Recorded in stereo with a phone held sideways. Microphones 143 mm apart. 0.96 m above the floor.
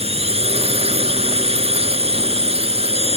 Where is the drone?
45° right (ahead or behind).